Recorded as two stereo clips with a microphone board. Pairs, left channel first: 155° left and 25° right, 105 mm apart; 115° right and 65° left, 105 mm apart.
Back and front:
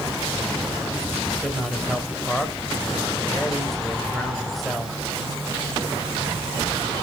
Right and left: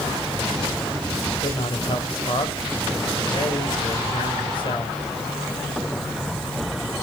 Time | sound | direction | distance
1.4 | a man speaking | 115° right | 2 m